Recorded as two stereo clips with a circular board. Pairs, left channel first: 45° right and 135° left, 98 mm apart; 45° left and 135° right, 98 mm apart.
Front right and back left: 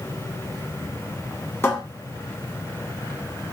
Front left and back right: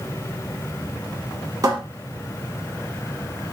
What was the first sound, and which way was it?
A cupboard door, 100° right.